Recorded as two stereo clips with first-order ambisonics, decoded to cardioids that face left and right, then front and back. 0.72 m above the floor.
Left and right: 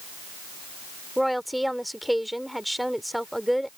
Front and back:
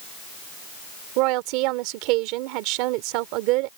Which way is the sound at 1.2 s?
Straight behind.